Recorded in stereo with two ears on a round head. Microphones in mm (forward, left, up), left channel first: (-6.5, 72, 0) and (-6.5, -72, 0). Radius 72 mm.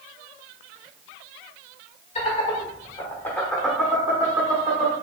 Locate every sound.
2.1 s laughter: 40° left (ahead or behind), 1.3 m; by 4.9 s 35° right (ahead or behind), 1.2 m